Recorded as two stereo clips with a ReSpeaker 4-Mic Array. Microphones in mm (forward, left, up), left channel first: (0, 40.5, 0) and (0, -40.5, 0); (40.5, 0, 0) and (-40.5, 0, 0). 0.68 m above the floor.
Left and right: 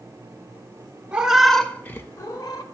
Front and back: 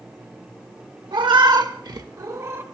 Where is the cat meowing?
165° right, 0.7 m; by 2.6 s 125° left, 0.8 m.